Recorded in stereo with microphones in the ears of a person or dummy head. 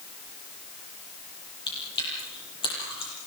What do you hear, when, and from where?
1.7 s chewing: 25° left (ahead or behind), 8.5 m